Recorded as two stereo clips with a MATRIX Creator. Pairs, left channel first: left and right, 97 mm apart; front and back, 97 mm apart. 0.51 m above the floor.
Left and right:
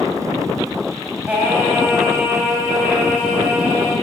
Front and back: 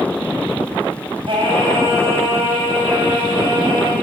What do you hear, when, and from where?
1.3 s singing: 165° right, 2.5 m